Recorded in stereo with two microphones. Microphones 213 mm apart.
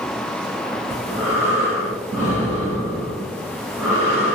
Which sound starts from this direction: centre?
Breathing, at 0.9 s.